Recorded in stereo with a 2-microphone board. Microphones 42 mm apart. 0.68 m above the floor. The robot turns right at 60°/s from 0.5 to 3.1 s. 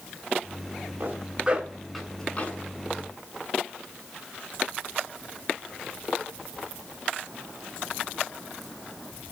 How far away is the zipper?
About 8 m.